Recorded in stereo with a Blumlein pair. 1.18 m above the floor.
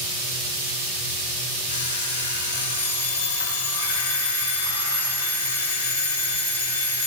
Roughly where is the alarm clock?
Left.